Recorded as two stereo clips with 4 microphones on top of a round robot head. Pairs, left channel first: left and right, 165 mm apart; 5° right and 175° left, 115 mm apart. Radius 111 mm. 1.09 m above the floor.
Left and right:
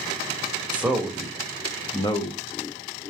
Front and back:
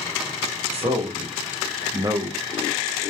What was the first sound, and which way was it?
A man speaking, 170° right.